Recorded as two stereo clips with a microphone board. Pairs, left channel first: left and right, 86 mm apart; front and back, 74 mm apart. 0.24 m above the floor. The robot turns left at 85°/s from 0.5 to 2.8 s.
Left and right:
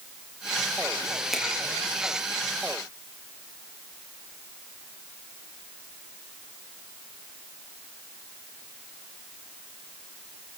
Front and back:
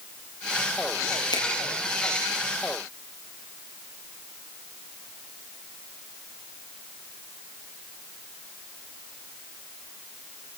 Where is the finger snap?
Straight ahead, 7 m; by 1.4 s 10° right, 7 m.